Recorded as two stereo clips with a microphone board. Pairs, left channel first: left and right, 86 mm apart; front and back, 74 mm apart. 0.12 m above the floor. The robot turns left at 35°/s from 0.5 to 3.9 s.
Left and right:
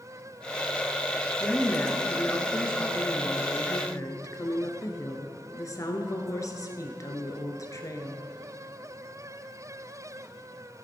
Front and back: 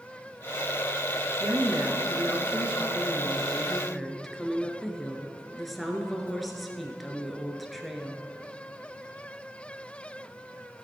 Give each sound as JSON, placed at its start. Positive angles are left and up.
{"t": 1.4, "sound": "a woman speaking", "azimuth_deg": 175, "distance_m": 1.5}